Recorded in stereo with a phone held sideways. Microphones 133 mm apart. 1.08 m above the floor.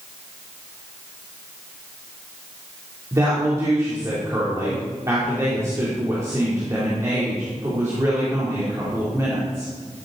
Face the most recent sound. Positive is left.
turn(degrees=-25)  # may be behind; listen again after turning